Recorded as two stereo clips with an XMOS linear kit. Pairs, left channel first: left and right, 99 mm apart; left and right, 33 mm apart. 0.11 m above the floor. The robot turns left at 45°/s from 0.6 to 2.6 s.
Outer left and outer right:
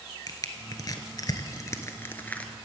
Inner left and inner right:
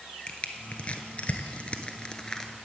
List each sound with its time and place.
0.3 s crushing: 40° left (ahead or behind), 0.9 m; by 2.5 s 10° left (ahead or behind), 0.9 m